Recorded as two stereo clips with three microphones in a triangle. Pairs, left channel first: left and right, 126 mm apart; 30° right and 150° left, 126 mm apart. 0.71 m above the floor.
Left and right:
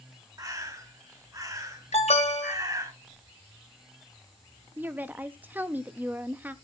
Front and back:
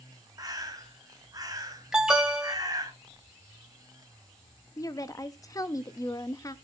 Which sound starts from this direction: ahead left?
An alarm, at 1.9 s.